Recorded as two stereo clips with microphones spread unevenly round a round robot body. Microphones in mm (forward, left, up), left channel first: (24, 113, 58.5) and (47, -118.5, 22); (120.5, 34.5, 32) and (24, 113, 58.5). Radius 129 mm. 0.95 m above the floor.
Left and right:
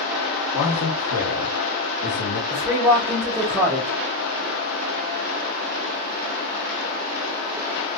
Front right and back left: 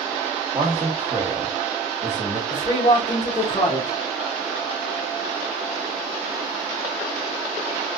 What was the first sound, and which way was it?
A man speaking, 80° left.